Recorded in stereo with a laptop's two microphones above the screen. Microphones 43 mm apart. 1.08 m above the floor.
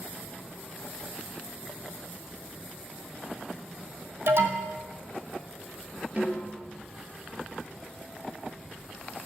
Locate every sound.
4.3 s an alarm: 70° right (ahead or behind), 2.5 m
6.2 s a snare drum: 35° right (ahead or behind), 4.5 m